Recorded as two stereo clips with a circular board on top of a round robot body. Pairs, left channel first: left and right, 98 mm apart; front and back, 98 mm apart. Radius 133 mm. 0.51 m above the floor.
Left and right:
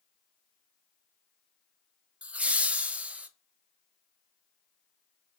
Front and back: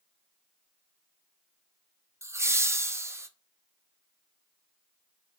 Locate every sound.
2.2 s laughter: 155° right, 0.7 m